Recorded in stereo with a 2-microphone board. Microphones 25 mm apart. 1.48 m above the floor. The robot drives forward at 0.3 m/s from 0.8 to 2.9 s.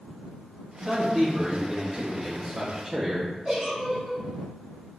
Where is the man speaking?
25° right (ahead or behind), 1.0 m; by 3.3 s 55° right (ahead or behind), 0.5 m.